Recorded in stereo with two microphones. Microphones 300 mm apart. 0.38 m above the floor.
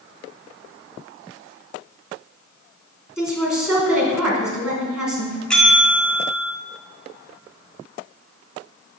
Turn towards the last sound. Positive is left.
turn(degrees=5)  # may be behind; listen again after turning